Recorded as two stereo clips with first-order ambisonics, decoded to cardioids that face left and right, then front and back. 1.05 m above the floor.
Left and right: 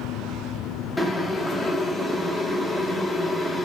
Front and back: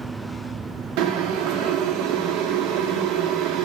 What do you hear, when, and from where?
1.0 s boiling: 170° left, 0.8 m